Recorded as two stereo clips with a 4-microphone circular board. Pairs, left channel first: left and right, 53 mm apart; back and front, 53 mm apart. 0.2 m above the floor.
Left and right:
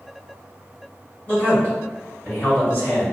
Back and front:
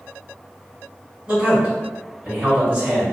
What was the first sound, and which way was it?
A man speaking, 55° left.